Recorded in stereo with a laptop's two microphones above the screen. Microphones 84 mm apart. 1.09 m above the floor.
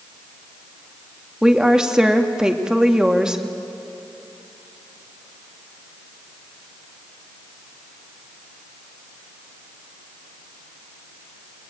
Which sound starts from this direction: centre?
A woman speaking, at 1.4 s.